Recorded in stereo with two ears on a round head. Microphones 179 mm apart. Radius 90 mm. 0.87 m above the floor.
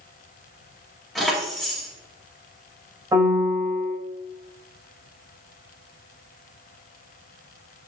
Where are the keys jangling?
Centre (ahead or behind), 2.5 m.